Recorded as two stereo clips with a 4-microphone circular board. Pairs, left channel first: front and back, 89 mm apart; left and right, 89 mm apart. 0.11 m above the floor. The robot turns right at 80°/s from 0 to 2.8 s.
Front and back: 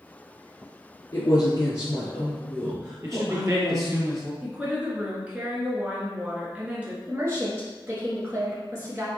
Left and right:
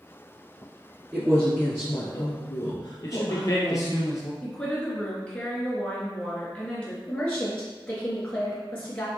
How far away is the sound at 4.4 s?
About 1.3 m.